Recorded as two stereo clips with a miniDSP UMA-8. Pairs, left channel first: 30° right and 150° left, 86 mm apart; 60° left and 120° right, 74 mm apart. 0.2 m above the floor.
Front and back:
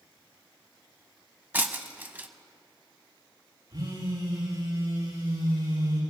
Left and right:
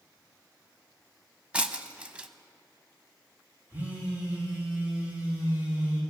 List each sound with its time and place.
1.5 s breaking glass: 175° right, 0.6 m
3.7 s a phone buzzing: straight behind, 5.5 m